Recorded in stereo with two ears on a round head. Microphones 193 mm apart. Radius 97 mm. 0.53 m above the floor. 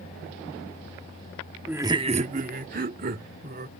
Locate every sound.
1.7 s laughter: 5° right (ahead or behind); by 3.7 s 45° right (ahead or behind)